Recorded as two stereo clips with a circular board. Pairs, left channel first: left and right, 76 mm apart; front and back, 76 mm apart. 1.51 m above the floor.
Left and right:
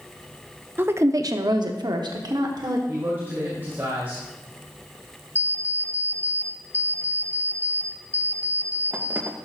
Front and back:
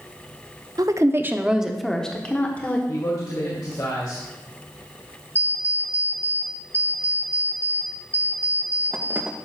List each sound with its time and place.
0.8 s a woman speaking: 150° right, 0.6 m; by 2.8 s 65° right, 1.3 m
2.9 s a man speaking: 30° right, 1.8 m
5.3 s an alarm clock: 135° right, 0.7 m